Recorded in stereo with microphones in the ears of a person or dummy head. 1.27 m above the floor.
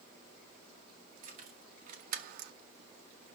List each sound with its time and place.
1.2 s keys jangling: 45° right (ahead or behind), 2.0 m; by 2.5 s 65° right (ahead or behind), 0.5 m